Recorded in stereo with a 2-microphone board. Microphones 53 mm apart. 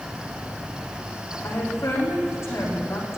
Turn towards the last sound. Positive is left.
turn(degrees=55)  # may be behind; listen again after turning